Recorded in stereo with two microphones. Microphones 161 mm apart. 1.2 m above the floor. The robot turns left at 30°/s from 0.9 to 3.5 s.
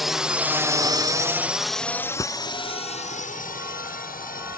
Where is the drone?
Centre (ahead or behind); by 4.6 s 65° left (ahead or behind).